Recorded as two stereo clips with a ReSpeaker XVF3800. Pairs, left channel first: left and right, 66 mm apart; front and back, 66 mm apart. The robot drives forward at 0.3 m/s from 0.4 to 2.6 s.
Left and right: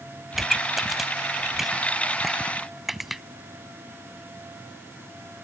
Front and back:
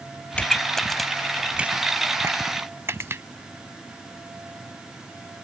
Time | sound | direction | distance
0.3 | a pop | 10° right | ?